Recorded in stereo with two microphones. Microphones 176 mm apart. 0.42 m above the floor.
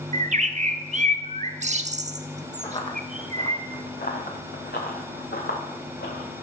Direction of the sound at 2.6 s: 30° left (ahead or behind).